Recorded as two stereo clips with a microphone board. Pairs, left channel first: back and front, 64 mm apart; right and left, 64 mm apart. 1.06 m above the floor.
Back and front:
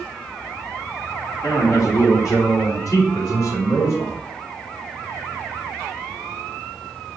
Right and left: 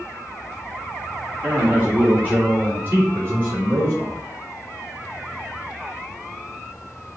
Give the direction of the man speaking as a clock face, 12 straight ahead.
7 o'clock.